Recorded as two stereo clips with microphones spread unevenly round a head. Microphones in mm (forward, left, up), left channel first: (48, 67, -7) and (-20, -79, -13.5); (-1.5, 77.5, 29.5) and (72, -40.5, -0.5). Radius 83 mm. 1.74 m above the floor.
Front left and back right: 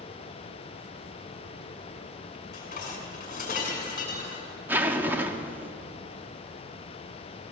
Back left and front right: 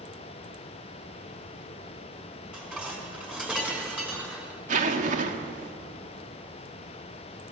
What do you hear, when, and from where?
2.5 s dishes clattering: 25° left, 5.5 m
4.7 s a zipper: 40° right, 1.5 m